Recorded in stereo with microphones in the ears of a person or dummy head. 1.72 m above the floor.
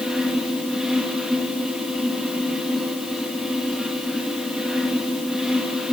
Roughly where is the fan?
Centre.